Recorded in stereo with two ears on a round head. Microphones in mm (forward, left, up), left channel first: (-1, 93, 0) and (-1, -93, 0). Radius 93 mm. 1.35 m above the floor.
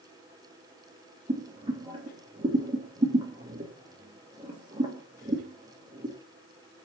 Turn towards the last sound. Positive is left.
turn(degrees=-25)  # may be behind; listen again after turning